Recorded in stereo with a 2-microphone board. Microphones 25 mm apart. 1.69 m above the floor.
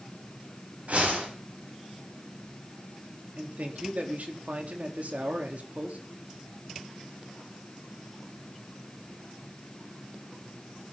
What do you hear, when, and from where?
0.9 s a whoosh: 65° right (ahead or behind), 10 m
3.4 s a man speaking: 65° right (ahead or behind), 4 m